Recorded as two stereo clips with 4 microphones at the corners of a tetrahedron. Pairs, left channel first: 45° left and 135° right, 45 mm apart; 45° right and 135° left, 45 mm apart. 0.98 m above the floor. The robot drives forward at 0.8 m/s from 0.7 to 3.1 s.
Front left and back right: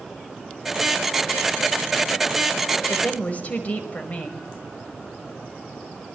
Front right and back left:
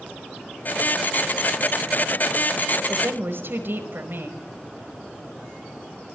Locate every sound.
2.9 s a woman speaking: 100° left, 5 m